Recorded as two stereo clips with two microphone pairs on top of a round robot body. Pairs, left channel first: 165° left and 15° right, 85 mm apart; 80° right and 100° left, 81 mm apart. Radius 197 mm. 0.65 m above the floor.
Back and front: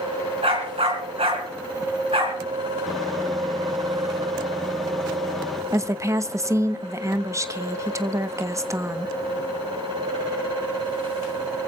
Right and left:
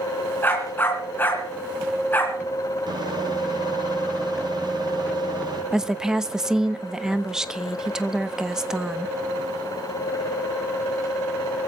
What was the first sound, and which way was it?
A dog barking, 15° right.